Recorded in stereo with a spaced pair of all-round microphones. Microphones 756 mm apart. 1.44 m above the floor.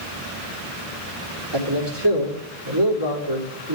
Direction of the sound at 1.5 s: 35° right (ahead or behind).